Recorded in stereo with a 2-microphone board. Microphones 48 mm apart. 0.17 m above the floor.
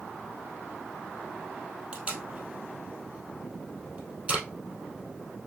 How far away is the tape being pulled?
About 1.9 m.